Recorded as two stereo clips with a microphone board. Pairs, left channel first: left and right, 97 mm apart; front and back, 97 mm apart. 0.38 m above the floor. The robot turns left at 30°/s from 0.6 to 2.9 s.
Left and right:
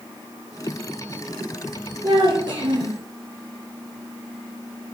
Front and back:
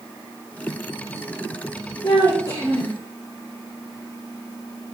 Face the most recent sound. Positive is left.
turn(degrees=-70)